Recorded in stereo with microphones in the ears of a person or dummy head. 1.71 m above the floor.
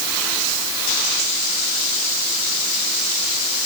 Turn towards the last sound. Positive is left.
No sound to turn to.